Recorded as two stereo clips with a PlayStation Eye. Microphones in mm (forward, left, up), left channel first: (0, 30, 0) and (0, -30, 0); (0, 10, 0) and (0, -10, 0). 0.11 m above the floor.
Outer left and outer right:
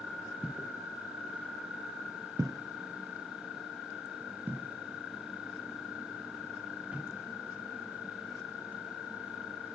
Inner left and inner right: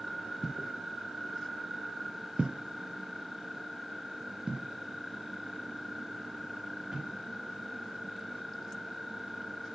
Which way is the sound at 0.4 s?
15° right (ahead or behind).